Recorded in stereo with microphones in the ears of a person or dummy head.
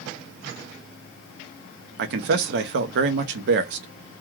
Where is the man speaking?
55° right (ahead or behind), 0.5 m.